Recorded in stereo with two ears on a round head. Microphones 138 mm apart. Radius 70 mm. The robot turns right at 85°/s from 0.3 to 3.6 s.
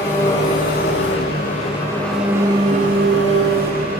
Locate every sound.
0.0 s an engine running: 25° left, 10 m; by 4.0 s 55° right, 10 m